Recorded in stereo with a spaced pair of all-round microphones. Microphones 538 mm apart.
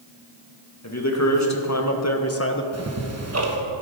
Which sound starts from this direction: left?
A man speaking, at 0.8 s.